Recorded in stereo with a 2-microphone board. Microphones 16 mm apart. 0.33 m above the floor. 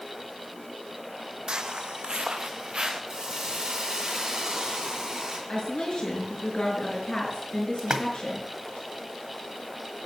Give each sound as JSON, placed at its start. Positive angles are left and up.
{"t": 1.5, "sound": "footsteps", "side_deg": -55, "distance_m": 0.8}
{"t": 3.1, "sound": "a hiss", "side_deg": -45, "distance_m": 3.5}
{"t": 5.5, "sound": "a woman speaking", "side_deg": 60, "distance_m": 5.5}
{"t": 7.8, "sound": "a splash", "side_deg": -45, "distance_m": 1.3}